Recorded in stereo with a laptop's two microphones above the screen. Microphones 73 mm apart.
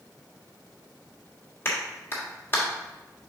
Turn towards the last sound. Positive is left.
turn(degrees=30)  # may be behind; listen again after turning